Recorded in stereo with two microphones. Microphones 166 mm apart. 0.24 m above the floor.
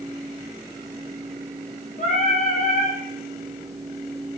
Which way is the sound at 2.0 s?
50° left (ahead or behind).